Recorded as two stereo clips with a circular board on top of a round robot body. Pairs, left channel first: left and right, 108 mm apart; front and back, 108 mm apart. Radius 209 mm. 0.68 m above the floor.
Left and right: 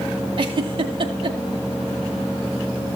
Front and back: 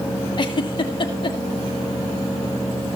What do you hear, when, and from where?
0.4 s a giggle: 50° right, 2.0 m